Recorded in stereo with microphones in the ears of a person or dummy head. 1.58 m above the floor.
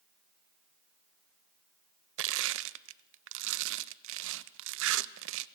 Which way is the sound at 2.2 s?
65° right (ahead or behind).